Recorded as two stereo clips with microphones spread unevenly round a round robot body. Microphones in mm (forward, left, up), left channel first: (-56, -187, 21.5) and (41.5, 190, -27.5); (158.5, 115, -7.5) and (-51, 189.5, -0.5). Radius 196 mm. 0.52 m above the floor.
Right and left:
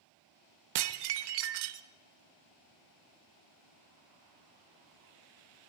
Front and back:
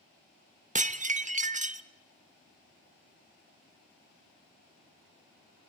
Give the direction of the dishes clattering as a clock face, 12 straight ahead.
9 o'clock.